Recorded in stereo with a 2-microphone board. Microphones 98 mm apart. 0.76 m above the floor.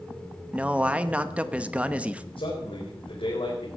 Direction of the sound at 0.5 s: 15° right (ahead or behind).